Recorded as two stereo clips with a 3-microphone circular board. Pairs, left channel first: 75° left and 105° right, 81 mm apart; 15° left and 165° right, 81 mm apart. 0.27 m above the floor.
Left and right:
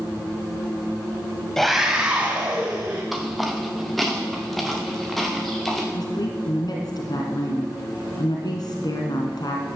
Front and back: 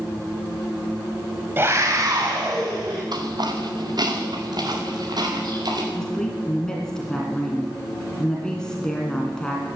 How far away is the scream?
About 1.3 m.